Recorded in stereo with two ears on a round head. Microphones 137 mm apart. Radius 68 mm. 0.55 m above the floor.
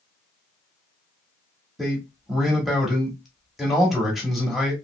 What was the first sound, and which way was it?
A man speaking, centre (ahead or behind).